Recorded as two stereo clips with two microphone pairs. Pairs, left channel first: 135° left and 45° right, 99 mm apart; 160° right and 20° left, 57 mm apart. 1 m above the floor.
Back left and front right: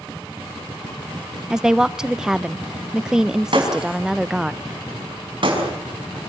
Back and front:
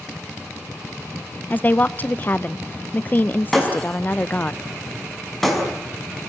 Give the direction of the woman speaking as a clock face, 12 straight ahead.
4 o'clock.